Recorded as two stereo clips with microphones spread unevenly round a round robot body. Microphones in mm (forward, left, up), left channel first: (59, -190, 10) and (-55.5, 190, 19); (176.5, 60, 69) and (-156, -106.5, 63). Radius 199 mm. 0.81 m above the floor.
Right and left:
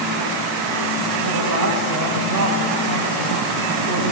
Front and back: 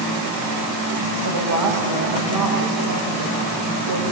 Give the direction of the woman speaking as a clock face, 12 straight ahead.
7 o'clock.